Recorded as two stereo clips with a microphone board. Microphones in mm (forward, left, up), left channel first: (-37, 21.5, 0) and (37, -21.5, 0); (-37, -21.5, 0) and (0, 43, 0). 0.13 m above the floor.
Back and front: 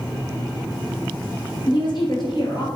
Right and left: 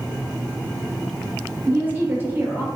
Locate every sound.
1.7 s a woman speaking: 125° left, 2.5 m